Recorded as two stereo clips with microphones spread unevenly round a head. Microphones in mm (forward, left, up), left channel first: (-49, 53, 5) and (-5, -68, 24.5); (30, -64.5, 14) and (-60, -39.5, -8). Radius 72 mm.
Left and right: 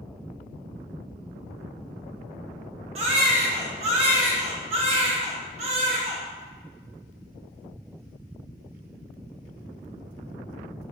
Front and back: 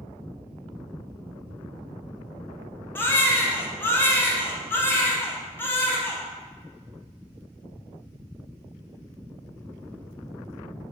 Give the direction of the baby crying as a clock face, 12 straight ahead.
2 o'clock.